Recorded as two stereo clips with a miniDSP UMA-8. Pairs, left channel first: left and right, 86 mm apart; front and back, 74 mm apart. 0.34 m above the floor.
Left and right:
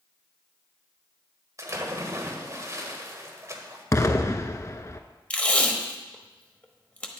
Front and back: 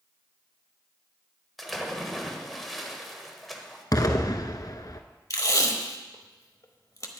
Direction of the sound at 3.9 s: 35° left.